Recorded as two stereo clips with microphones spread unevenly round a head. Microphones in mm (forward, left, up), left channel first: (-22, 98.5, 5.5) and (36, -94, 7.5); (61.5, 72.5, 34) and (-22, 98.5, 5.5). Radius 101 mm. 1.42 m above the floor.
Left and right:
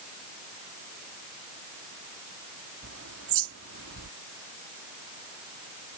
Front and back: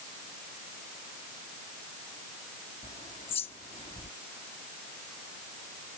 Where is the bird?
55° right.